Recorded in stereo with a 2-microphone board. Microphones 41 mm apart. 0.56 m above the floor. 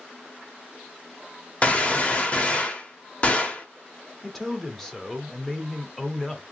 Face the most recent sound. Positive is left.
turn(degrees=10)  # may be behind; listen again after turning